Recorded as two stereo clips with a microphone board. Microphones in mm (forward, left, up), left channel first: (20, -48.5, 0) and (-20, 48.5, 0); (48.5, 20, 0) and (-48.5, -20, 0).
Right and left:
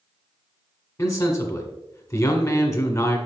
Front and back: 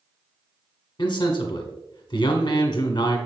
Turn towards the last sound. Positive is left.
turn(degrees=-15)